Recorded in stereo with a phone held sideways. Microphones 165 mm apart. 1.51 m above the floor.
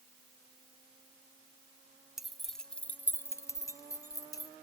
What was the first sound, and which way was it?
Keys jangling, centre (ahead or behind).